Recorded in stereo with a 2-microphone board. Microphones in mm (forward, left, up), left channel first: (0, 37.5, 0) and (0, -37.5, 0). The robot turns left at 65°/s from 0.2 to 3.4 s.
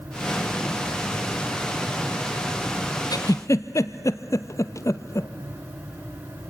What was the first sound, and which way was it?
A giggle, 60° left (ahead or behind).